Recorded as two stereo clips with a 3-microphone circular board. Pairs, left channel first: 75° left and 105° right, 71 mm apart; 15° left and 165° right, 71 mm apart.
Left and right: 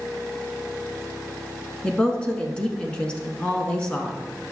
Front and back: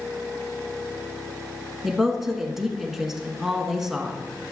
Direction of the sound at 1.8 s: 120° left.